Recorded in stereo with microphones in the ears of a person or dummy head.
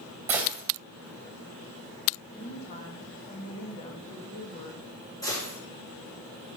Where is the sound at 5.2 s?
15° left (ahead or behind), 5.5 m.